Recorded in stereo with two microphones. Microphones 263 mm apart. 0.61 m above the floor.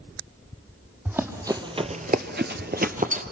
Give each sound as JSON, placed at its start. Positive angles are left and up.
{"t": 1.1, "sound": "running footsteps", "side_deg": -10, "distance_m": 1.5}